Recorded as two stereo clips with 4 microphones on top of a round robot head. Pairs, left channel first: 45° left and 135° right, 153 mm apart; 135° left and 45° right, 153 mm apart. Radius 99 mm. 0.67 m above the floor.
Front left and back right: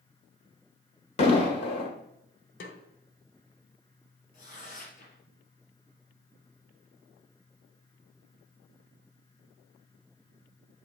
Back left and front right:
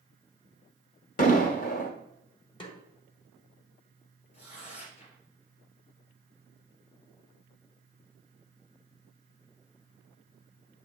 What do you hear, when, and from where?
1.2 s an explosion: 100° left, 1.4 m
2.6 s a snare drum: 75° left, 1.3 m
4.3 s tearing paper: 90° left, 3.5 m